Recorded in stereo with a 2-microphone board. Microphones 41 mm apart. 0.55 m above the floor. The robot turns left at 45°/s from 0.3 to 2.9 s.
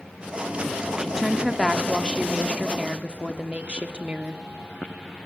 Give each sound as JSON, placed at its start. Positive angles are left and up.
{"t": 1.0, "sound": "a woman speaking", "azimuth_deg": 0, "distance_m": 1.4}